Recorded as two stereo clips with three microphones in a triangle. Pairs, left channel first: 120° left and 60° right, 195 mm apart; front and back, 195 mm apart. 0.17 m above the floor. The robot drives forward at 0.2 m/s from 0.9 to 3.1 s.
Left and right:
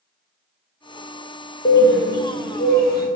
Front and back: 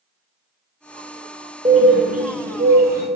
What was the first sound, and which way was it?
A bird, 130° left.